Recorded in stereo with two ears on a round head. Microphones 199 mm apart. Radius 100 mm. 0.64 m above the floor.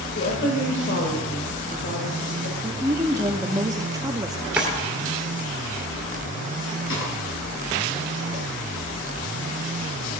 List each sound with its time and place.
0.1 s a woman speaking: 50° left (ahead or behind), 2 m
2.6 s a woman speaking: 15° right (ahead or behind), 0.9 m
4.6 s a drawer: 5° right (ahead or behind), 2.5 m
6.9 s a snare drum: 60° left (ahead or behind), 5 m